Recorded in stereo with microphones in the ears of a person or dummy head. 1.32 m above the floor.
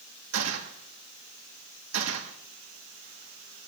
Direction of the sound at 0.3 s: 65° right (ahead or behind).